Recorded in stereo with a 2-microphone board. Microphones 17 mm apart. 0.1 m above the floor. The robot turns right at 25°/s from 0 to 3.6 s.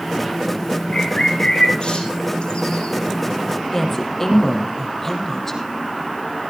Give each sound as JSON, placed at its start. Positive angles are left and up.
{"t": 0.9, "sound": "a bird", "side_deg": 55, "distance_m": 4.0}
{"t": 3.7, "sound": "a woman speaking", "side_deg": 25, "distance_m": 4.5}